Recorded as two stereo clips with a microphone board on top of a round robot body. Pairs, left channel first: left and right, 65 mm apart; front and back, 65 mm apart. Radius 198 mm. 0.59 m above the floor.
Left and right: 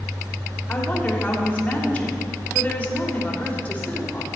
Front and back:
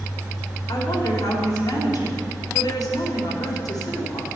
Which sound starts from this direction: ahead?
A woman speaking, at 0.7 s.